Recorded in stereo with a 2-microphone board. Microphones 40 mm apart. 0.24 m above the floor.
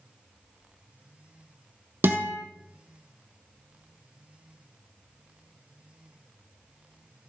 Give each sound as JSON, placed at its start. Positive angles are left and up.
{"t": 2.0, "sound": "a guitar", "side_deg": -60, "distance_m": 1.4}